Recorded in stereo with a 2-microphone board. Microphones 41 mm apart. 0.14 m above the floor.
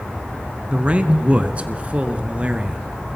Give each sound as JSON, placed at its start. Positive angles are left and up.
{"t": 0.7, "sound": "a man speaking", "side_deg": -25, "distance_m": 1.4}